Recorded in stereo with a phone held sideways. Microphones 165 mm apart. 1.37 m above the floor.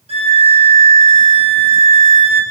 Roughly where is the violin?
Right.